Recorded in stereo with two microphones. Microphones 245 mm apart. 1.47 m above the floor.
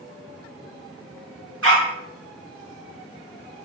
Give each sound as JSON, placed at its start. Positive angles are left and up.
{"t": 1.6, "sound": "a dog barking", "side_deg": -60, "distance_m": 3.5}